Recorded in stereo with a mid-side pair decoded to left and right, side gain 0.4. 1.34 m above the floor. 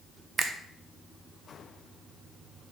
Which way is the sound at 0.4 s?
55° right.